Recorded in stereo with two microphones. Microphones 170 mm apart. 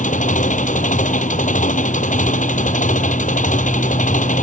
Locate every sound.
0.0 s an engine running: 50° left (ahead or behind)